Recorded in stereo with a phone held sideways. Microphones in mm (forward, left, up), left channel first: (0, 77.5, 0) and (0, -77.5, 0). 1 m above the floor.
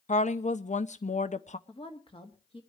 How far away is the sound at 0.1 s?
About 0.7 m.